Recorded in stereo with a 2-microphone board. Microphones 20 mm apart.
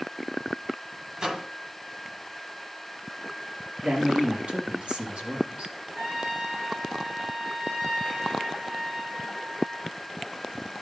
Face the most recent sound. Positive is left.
turn(degrees=-75)  # may be behind; listen again after turning